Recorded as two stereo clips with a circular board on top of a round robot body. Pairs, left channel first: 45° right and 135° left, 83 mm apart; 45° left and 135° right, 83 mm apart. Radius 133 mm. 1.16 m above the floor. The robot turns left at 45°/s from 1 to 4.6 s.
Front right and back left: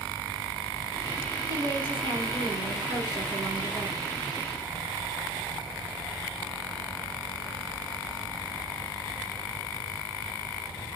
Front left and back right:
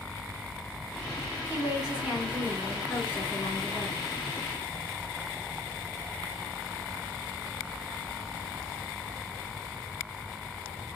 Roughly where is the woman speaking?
Behind.